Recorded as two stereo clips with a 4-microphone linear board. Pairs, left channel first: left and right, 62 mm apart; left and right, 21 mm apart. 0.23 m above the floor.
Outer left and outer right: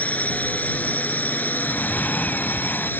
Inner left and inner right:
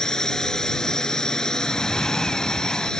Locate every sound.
0.0 s a drone: 25° left (ahead or behind); by 3.0 s 35° left (ahead or behind)
1.6 s breathing: 25° left (ahead or behind)